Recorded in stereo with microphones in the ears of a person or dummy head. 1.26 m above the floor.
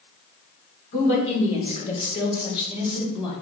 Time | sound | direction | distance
0.9 | a woman speaking | 40° left (ahead or behind) | 4.5 m